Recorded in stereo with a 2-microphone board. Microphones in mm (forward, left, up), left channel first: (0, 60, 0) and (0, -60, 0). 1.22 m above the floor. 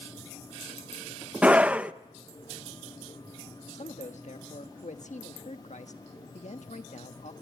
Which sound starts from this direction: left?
A man speaking, at 3.7 s.